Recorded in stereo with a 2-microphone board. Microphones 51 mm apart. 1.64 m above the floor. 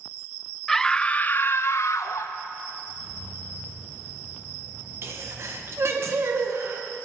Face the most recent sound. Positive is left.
turn(degrees=-60)  # may be behind; listen again after turning